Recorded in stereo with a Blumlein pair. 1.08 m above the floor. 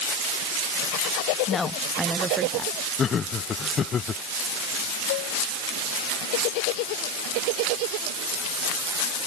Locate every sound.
1.5 s a woman speaking: 25° left; by 2.8 s 30° right
3.0 s laughter: 25° left
5.1 s dishes clattering: 50° left